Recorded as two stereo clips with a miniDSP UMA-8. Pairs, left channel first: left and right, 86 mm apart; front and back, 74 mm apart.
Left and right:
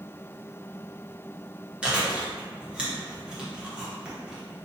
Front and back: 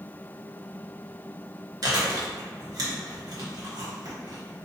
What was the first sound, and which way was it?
Chewing, 165° right.